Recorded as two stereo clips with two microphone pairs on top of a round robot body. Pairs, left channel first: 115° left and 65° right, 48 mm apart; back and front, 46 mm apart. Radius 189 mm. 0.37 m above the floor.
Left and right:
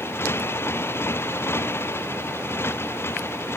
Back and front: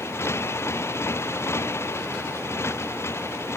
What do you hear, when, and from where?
0.0 s a motorcycle: 150° left